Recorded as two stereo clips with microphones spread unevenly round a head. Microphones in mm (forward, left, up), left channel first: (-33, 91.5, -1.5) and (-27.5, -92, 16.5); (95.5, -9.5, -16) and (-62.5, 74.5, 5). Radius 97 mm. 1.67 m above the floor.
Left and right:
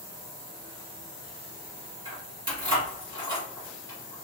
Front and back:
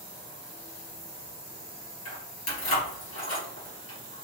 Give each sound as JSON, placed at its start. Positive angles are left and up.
{"t": 2.0, "sound": "keys jangling", "azimuth_deg": -25, "distance_m": 2.5}